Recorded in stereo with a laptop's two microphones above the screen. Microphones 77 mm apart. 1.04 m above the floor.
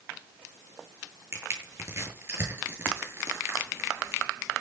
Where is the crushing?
30° right (ahead or behind), 8.5 m.